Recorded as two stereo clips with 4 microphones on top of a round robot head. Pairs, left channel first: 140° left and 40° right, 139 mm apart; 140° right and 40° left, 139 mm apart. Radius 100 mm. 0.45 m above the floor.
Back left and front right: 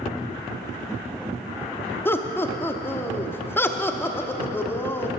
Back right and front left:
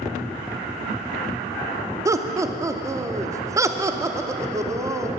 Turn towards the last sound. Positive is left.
turn(degrees=80)